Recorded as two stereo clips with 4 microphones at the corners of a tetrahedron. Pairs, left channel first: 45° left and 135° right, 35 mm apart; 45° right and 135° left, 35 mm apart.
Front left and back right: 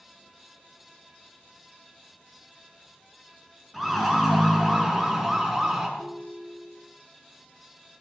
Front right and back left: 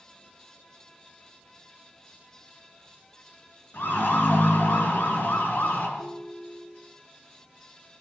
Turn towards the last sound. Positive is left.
turn(degrees=-85)